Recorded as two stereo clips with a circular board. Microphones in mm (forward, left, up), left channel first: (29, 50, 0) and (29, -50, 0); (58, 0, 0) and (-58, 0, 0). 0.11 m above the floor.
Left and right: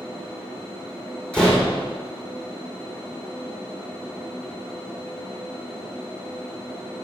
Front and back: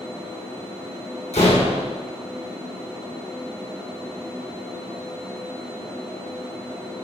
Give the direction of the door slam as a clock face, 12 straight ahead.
12 o'clock.